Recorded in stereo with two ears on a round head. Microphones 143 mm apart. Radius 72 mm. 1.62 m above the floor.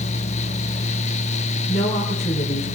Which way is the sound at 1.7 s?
45° left (ahead or behind).